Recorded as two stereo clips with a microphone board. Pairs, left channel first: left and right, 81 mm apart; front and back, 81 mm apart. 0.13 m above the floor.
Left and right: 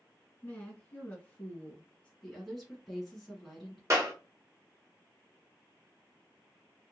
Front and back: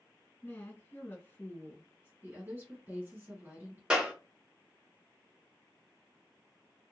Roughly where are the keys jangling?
I don't hear keys jangling.